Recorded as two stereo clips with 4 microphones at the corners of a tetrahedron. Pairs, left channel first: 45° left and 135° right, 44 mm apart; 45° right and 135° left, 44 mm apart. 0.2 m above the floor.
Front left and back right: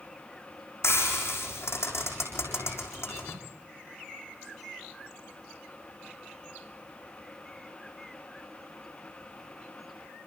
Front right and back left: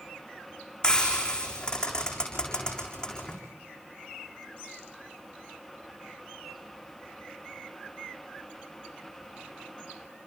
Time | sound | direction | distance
0.8 | frying | 30° left | 6.5 m